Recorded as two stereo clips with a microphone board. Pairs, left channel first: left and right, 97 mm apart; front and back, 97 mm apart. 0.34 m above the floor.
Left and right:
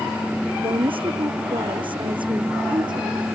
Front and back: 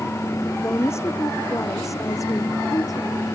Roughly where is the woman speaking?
Ahead right.